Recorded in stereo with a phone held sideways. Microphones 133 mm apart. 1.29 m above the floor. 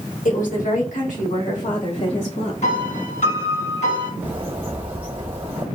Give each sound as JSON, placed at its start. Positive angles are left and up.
{"t": 0.2, "sound": "a woman speaking", "side_deg": 80, "distance_m": 1.5}
{"t": 2.6, "sound": "a piano", "side_deg": 65, "distance_m": 2.0}
{"t": 4.2, "sound": "a bird", "side_deg": -40, "distance_m": 1.3}